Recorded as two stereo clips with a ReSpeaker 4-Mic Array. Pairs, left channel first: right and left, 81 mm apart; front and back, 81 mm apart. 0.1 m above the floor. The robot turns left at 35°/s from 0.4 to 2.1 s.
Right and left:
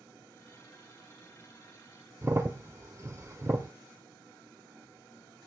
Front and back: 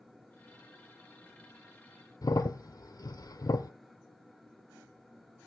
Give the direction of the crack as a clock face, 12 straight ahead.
11 o'clock.